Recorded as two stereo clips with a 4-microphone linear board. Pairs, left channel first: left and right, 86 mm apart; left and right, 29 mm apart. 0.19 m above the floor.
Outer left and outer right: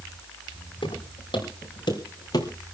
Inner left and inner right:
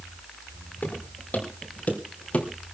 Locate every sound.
0.8 s footsteps: 70° left (ahead or behind), 5 m; by 2.5 s 45° left (ahead or behind), 3.5 m